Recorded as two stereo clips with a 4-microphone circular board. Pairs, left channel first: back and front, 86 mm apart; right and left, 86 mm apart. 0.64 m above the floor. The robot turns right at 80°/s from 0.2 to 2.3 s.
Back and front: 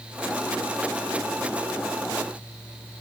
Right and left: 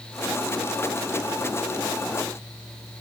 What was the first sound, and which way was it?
Only background noise.